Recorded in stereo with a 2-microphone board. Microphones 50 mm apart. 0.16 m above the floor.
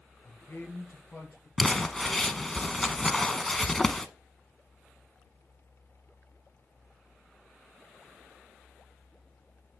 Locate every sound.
0.2 s a man speaking: 55° left (ahead or behind), 3 m; by 1.5 s 60° left (ahead or behind), 4 m
1.6 s crumpling: 10° left (ahead or behind), 0.6 m